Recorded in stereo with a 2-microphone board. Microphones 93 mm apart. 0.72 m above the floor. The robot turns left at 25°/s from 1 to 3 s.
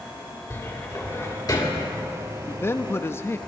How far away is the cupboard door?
About 2.0 m.